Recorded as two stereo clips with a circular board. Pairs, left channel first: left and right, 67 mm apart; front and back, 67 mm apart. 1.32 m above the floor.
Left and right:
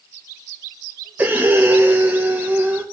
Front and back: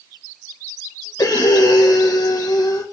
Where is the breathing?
25° right, 1.5 m.